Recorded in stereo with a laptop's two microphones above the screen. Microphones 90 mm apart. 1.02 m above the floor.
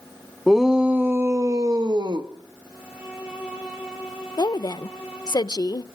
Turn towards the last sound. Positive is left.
turn(degrees=50)  # may be behind; listen again after turning